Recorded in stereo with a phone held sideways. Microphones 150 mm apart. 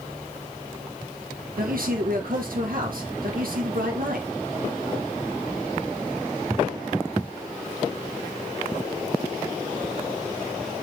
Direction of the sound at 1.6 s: 70° right (ahead or behind).